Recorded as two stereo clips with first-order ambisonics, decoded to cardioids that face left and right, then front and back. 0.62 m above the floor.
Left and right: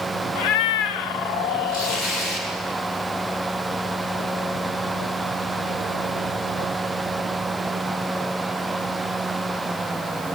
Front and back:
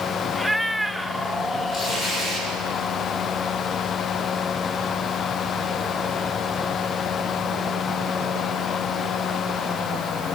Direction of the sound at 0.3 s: 85° left.